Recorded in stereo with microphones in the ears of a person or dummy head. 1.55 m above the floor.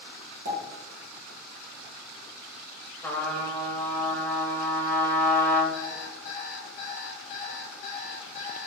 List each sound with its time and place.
0.5 s a pop: 50° right (ahead or behind), 1.8 m
3.0 s a trumpet: 20° left (ahead or behind), 0.8 m
5.7 s an alarm clock: 45° left (ahead or behind), 0.8 m